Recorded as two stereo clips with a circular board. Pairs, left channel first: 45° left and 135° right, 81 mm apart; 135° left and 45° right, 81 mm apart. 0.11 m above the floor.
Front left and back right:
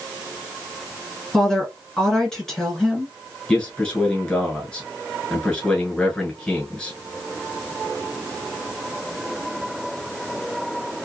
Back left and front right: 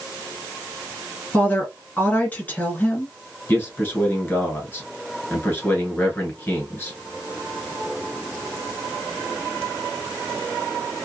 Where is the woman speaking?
120° left, 1.4 m.